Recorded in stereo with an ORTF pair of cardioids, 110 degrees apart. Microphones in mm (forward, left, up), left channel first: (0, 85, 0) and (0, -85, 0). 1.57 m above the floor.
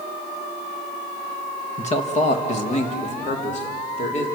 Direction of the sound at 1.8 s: 40° left.